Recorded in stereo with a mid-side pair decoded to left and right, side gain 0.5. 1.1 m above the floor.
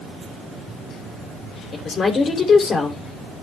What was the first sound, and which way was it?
A woman speaking, 45° left.